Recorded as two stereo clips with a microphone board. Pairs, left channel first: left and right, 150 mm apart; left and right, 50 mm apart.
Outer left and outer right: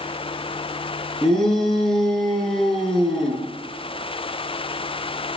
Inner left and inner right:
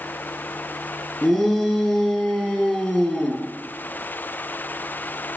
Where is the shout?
5° left (ahead or behind), 4.5 m.